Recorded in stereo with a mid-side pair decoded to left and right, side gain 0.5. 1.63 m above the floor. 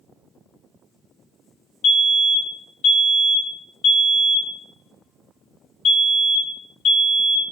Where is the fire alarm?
60° left, 4.5 m.